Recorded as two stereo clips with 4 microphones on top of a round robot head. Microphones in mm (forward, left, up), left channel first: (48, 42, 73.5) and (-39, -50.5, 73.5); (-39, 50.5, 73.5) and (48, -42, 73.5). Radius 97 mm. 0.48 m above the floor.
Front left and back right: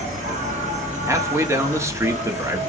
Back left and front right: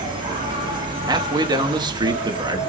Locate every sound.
0.0 s an insect: 100° right, 1.9 m
1.1 s a man speaking: 80° right, 1.0 m